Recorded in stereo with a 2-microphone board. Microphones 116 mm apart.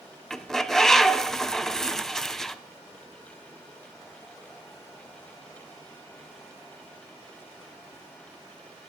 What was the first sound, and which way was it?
A bird, 5° left (ahead or behind).